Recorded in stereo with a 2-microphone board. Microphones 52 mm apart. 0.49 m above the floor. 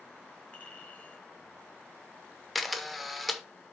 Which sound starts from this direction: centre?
A camera shutter, at 2.5 s.